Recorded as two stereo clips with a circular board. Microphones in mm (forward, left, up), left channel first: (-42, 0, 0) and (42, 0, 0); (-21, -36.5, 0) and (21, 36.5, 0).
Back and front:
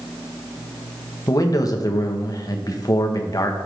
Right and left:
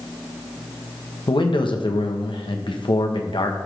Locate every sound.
1.3 s a man speaking: 135° right, 1.1 m